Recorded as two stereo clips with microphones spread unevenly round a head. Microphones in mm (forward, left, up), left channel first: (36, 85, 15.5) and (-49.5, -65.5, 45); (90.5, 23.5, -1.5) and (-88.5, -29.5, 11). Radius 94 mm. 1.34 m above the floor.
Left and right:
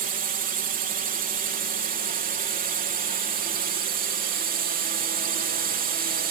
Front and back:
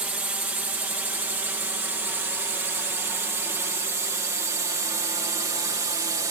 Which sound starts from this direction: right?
A drone, at 0.0 s.